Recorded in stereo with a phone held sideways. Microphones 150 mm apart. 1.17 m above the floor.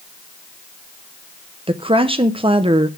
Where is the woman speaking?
35° right (ahead or behind), 0.6 m.